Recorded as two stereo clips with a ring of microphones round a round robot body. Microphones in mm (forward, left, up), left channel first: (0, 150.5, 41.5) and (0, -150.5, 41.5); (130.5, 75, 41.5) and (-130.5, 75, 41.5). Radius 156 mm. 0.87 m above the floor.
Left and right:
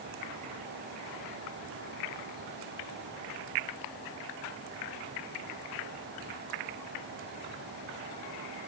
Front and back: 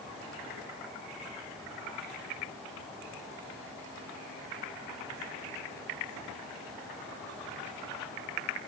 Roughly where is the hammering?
I don't hear hammering.